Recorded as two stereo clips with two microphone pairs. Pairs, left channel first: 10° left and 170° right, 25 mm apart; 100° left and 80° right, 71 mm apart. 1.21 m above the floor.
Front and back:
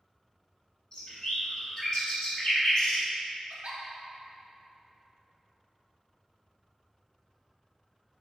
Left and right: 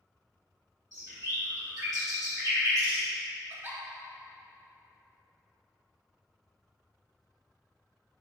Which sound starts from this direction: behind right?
A giggle, at 3.5 s.